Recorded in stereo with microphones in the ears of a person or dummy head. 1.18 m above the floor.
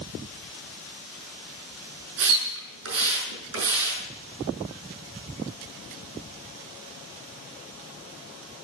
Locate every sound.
2.2 s a splash: 70° right (ahead or behind), 6.5 m